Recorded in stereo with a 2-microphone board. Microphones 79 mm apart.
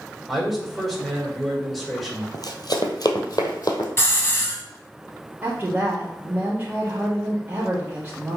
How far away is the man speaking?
About 3 m.